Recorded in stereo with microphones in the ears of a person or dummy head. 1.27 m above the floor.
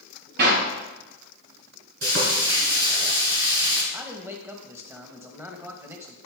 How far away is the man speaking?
About 1.1 m.